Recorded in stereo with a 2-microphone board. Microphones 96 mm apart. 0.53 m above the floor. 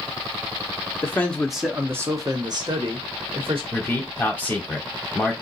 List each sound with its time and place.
1.0 s a man speaking: 25° left (ahead or behind), 0.7 m; by 3.6 s 65° right (ahead or behind), 1.4 m
3.7 s a man speaking: 15° left (ahead or behind), 1.3 m